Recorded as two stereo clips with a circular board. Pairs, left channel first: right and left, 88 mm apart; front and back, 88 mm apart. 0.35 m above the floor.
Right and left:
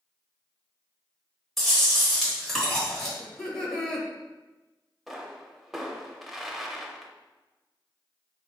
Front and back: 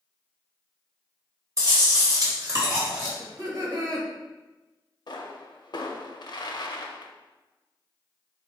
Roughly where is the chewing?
Behind.